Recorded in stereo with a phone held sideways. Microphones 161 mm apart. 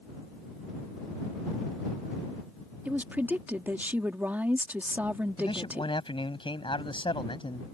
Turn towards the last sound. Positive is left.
turn(degrees=30)  # may be behind; listen again after turning